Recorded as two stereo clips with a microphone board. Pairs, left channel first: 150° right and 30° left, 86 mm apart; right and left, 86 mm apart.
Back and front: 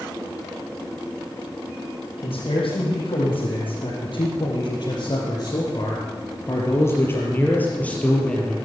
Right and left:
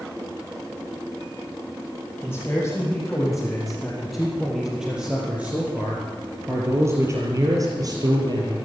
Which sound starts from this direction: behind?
A man speaking, at 2.2 s.